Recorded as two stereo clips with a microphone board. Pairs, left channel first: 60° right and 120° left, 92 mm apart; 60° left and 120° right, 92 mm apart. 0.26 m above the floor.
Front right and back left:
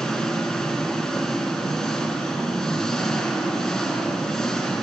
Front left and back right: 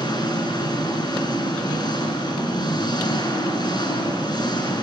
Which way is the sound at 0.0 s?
25° left.